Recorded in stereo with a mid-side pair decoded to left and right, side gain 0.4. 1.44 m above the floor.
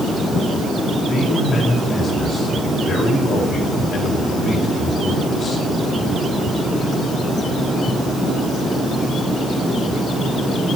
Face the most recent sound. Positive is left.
turn(degrees=55)